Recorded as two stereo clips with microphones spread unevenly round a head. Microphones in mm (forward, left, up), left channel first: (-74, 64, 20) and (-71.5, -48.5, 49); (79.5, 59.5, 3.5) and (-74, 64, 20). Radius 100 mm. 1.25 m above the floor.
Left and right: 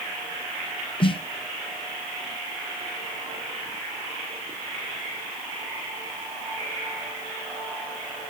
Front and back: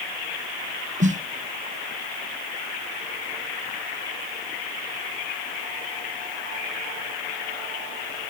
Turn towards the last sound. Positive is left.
turn(degrees=135)